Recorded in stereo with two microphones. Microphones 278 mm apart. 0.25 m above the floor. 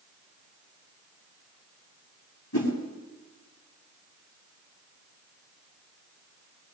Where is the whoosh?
75° left (ahead or behind), 6 m.